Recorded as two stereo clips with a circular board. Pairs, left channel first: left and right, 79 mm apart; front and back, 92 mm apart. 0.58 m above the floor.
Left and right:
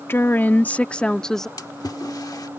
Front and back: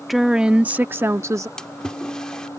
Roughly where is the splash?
Left.